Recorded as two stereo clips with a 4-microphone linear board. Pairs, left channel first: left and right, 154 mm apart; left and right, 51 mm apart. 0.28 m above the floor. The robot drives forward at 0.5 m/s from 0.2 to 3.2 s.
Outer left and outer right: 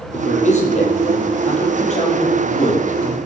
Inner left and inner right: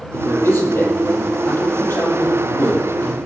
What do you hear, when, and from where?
0.1 s a man speaking: 50° left (ahead or behind), 7 m; by 3.1 s 45° left (ahead or behind), 8 m